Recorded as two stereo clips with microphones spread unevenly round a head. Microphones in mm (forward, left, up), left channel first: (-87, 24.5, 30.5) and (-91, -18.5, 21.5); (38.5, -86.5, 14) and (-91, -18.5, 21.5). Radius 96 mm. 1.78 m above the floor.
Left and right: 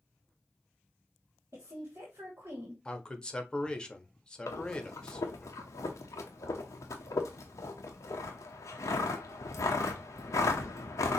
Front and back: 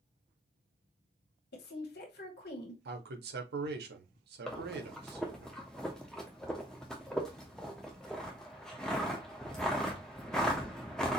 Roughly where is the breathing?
Ahead left.